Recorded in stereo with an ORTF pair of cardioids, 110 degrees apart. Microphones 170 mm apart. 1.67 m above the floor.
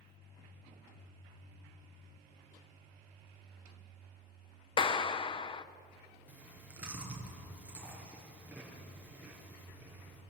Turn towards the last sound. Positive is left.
turn(degrees=-10)